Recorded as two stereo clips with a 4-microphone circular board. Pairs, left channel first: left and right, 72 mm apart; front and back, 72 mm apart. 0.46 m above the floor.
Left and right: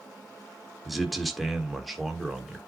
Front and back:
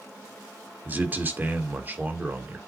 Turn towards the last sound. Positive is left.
turn(degrees=-175)